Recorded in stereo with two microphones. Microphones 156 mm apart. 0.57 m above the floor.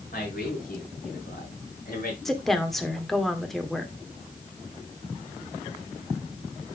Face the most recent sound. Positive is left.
turn(degrees=0)  # may be behind; listen again after turning